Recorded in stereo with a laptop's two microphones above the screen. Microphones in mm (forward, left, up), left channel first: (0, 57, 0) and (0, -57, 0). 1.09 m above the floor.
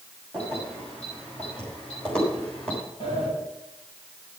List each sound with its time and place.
0.3 s keys jangling: 15° left (ahead or behind), 5.5 m; by 2.8 s 10° left (ahead or behind), 3.5 m
3.0 s a sliding door: 45° left (ahead or behind), 6.5 m